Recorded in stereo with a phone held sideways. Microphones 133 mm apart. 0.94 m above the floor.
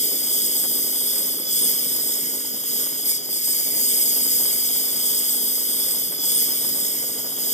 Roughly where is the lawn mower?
Left.